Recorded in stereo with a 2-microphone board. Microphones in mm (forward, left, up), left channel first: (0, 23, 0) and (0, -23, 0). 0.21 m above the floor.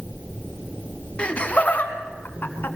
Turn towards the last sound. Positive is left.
turn(degrees=50)  # may be behind; listen again after turning